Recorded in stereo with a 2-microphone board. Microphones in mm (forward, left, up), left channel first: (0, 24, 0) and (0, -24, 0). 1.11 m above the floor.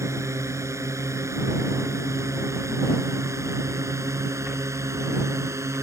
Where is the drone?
85° right.